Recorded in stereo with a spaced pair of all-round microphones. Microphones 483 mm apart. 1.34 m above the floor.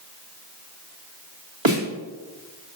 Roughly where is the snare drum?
Right.